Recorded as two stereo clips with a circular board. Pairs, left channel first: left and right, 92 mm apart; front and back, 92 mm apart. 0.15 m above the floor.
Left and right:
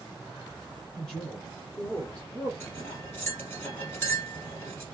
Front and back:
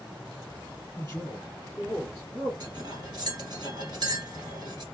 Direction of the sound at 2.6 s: 150° left.